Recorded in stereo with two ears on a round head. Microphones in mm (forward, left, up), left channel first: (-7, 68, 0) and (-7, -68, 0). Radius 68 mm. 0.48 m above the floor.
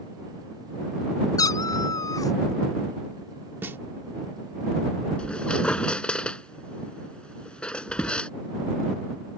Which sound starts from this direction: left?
A cat meowing, at 1.4 s.